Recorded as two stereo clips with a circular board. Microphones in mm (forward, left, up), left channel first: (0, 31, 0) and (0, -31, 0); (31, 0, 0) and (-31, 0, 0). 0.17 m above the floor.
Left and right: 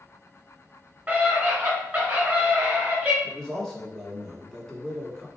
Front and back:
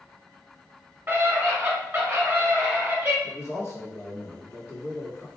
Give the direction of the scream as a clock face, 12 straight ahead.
5 o'clock.